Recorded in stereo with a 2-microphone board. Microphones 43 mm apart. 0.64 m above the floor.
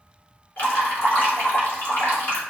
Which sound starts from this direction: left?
Dripping, at 0.6 s.